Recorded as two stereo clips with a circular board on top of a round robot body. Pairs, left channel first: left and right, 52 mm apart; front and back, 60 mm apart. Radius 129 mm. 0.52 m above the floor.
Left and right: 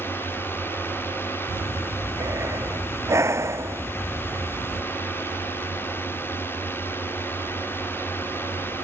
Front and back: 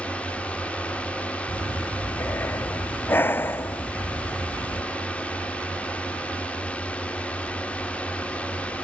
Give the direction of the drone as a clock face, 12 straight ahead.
10 o'clock.